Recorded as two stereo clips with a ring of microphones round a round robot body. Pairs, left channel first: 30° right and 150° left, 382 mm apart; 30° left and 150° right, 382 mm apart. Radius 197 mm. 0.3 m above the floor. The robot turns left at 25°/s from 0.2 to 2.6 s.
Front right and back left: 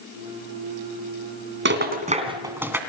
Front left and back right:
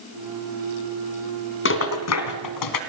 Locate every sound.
1.6 s a rattle: 90° left, 2.5 m; by 2.8 s 65° left, 2.5 m